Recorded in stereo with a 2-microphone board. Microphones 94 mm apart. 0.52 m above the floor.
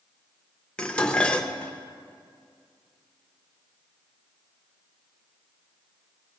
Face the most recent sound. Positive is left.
turn(degrees=10)  # may be behind; listen again after turning